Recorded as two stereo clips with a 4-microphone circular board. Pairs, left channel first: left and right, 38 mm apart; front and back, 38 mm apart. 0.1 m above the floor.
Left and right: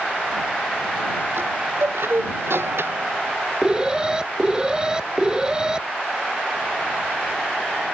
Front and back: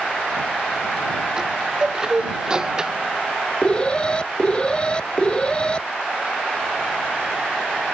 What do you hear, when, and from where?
1.4 s a chime: 105° right
3.6 s an alarm: 35° right